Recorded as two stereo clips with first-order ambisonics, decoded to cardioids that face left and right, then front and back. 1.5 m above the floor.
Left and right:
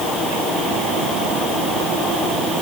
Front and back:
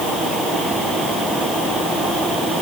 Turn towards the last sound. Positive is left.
No sound to turn to.